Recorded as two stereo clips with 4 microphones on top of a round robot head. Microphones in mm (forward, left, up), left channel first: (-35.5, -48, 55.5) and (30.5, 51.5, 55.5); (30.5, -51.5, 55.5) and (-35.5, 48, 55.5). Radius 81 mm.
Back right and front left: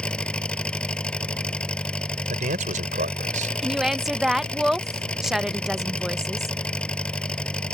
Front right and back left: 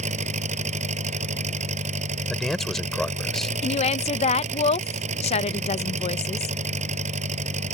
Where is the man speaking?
30° left.